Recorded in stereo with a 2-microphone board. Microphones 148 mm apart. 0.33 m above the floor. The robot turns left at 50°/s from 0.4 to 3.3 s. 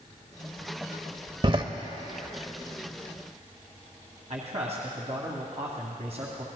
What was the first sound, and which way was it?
A door slam, 35° right (ahead or behind).